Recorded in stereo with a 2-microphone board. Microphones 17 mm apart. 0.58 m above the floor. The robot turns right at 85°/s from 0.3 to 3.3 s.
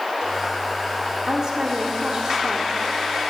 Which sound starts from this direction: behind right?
A woman speaking, at 1.3 s.